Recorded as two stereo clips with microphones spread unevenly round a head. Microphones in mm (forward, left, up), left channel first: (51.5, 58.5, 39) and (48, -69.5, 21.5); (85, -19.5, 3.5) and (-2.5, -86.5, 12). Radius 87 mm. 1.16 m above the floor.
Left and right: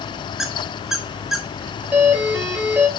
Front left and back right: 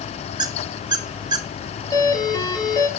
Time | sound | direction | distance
0.4 | a squeak | 175° left | 0.5 m
1.9 | a doorbell | 10° right | 4.5 m